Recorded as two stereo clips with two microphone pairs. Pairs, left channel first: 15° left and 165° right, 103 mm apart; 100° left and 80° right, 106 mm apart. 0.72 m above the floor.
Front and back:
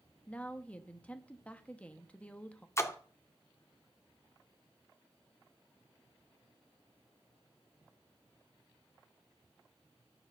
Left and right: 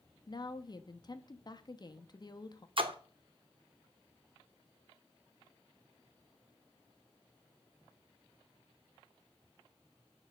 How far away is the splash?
About 0.6 m.